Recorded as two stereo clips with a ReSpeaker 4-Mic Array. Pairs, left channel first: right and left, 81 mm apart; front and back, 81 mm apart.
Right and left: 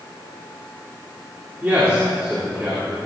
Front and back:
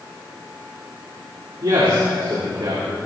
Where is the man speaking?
155° left, 2.5 m.